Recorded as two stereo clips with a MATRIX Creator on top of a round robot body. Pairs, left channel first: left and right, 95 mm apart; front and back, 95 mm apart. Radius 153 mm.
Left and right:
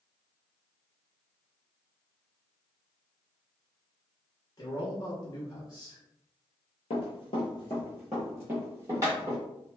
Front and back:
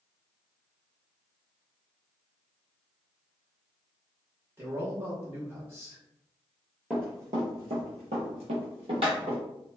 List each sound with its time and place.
4.6 s a man speaking: 125° left, 1.1 m
6.9 s running footsteps: 105° left, 0.7 m; by 9.4 s 145° right, 1.2 m